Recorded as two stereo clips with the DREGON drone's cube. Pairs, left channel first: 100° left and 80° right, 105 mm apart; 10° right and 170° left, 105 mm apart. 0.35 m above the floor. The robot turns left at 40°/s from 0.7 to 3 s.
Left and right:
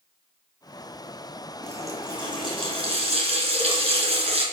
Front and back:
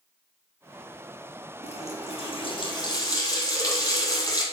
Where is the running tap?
10° right, 3 m; by 4.4 s 65° right, 3 m.